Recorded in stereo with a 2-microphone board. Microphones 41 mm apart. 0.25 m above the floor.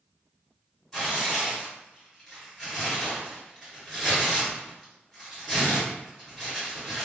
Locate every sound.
0.9 s tearing paper: 5° left (ahead or behind), 1.9 m